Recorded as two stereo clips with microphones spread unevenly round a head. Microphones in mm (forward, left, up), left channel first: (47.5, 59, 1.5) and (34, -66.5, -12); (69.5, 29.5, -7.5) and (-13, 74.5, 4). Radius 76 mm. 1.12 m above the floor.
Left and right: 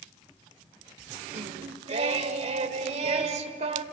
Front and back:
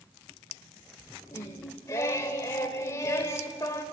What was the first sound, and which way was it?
Singing, 90° right.